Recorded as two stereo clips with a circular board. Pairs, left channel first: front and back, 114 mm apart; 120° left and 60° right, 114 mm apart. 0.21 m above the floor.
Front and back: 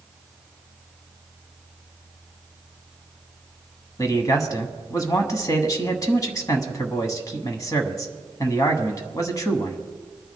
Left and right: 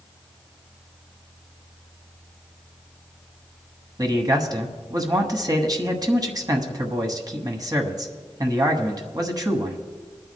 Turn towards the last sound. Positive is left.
turn(degrees=-35)